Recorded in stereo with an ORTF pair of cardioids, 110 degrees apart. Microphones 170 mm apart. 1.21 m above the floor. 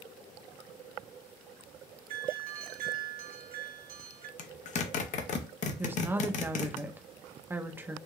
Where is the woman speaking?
10° right, 0.7 m.